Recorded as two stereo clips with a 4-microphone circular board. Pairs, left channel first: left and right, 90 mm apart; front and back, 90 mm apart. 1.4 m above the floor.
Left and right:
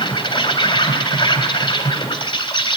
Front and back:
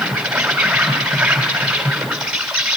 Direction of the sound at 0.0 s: 100° left.